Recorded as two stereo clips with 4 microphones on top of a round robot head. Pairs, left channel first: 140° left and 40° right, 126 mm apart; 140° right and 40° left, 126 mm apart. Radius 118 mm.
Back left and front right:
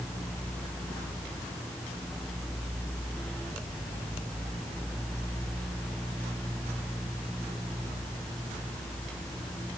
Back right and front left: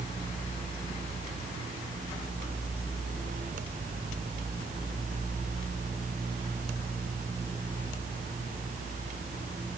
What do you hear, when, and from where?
Only background noise.